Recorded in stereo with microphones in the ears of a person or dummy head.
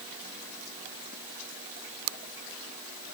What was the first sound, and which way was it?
Only background noise.